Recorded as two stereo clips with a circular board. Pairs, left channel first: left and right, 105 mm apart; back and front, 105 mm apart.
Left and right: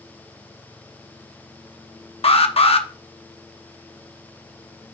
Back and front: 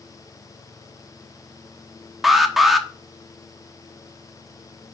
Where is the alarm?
90° left, 0.9 m.